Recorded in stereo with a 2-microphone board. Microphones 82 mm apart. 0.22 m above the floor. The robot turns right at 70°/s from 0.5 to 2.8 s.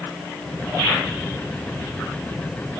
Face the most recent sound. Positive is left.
No sound to turn to.